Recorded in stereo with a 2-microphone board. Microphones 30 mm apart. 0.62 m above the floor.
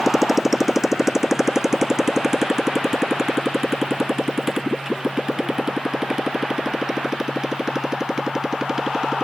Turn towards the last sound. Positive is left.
turn(degrees=-20)  # may be behind; listen again after turning